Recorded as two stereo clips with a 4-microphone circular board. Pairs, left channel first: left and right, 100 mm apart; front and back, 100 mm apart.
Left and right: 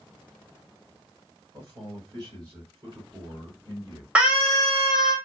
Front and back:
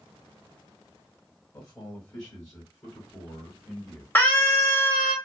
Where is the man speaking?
45° right, 2.5 m; by 4.0 s 50° right, 1.6 m.